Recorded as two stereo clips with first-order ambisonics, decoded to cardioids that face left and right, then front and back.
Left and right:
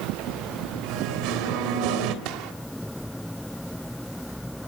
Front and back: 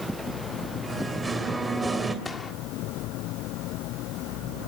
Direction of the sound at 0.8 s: 100° right.